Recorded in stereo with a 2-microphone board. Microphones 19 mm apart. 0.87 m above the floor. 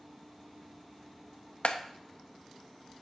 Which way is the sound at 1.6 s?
65° left (ahead or behind).